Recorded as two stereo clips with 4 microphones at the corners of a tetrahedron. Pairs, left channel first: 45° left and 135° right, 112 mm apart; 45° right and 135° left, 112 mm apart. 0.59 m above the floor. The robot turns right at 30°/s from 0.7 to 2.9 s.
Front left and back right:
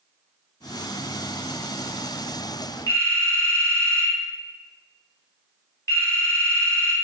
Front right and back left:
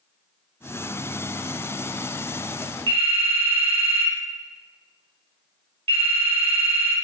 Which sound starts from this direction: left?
A phone ringing, at 2.9 s.